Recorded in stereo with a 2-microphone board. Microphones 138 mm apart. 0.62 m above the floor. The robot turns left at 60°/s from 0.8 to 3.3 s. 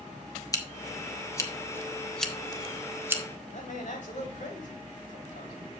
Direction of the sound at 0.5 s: 25° left (ahead or behind).